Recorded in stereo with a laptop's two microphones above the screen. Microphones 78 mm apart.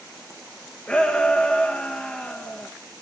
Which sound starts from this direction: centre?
A shout, at 0.9 s.